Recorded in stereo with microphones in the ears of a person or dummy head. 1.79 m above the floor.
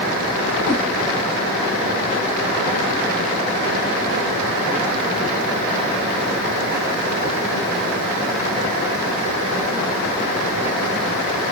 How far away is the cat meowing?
About 1.6 m.